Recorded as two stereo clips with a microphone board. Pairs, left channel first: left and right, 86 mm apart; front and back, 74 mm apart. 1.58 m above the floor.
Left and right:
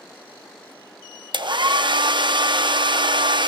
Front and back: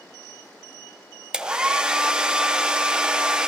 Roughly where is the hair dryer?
Right.